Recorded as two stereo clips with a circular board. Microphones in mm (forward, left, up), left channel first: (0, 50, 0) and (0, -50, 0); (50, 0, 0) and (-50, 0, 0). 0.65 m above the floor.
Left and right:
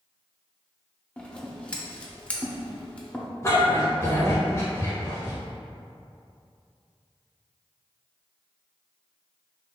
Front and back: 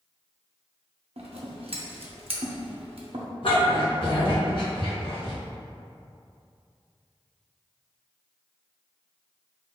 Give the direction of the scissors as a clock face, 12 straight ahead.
6 o'clock.